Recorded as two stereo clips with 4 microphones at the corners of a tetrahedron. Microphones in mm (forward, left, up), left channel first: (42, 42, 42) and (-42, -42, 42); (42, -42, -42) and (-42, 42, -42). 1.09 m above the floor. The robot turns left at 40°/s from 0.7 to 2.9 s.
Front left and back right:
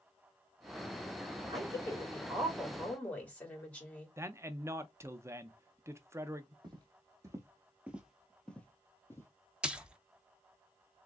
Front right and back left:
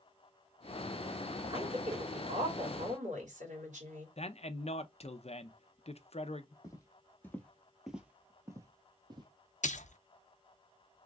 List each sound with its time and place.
1.5 s a woman speaking: straight behind, 2.5 m; by 4.1 s 125° left, 2.5 m
4.2 s a man speaking: 70° right, 0.6 m
6.6 s footsteps: 95° right, 1.5 m; by 9.3 s 105° left, 1.5 m
9.6 s a splash: 55° right, 0.6 m